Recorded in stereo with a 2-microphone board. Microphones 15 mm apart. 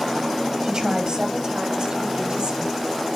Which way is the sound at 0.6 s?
60° right (ahead or behind).